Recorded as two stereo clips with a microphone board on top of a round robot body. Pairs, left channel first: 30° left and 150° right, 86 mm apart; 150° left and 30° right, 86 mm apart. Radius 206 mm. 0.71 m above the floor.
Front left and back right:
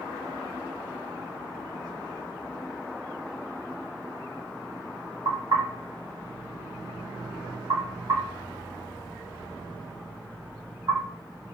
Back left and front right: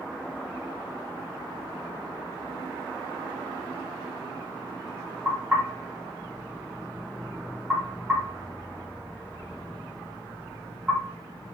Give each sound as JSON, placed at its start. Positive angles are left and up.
{"t": 5.2, "sound": "knocking", "azimuth_deg": -105, "distance_m": 2.5}